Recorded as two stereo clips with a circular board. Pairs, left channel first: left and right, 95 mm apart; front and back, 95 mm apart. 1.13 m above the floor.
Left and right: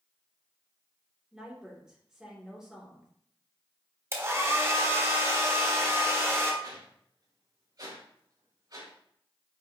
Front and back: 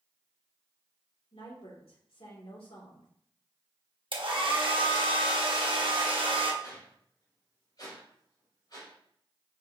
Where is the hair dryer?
150° right, 1.3 m.